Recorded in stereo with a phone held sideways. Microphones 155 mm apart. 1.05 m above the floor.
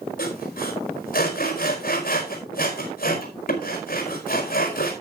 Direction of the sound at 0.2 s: 65° left (ahead or behind).